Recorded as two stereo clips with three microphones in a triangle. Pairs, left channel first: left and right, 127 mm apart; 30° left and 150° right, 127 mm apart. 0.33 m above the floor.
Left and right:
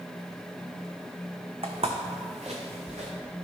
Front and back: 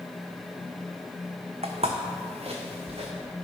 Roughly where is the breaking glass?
No breaking glass in this recording.